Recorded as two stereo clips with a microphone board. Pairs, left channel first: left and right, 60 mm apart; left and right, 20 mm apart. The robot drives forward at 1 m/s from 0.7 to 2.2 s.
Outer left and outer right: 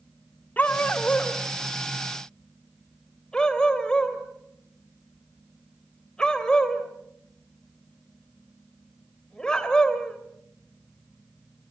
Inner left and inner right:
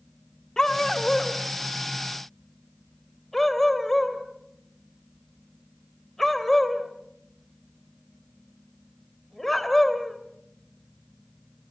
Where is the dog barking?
30° left (ahead or behind), 1.3 m; by 10.2 s 15° left (ahead or behind), 2.5 m.